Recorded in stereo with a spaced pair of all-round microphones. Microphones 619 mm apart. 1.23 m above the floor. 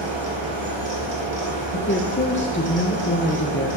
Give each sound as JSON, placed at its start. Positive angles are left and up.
{"t": 0.0, "sound": "a fan", "side_deg": -45, "distance_m": 2.5}
{"t": 1.7, "sound": "a woman speaking", "side_deg": 20, "distance_m": 0.6}